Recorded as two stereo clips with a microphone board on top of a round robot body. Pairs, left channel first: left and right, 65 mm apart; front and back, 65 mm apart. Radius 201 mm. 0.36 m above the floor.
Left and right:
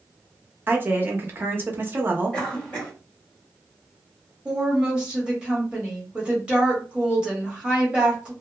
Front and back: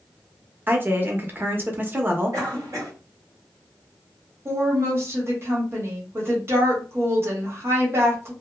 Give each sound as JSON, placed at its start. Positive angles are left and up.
{"t": 0.7, "sound": "a woman speaking", "azimuth_deg": -135, "distance_m": 1.0}
{"t": 2.3, "sound": "a cough", "azimuth_deg": 160, "distance_m": 1.5}
{"t": 4.5, "sound": "a woman speaking", "azimuth_deg": -160, "distance_m": 1.5}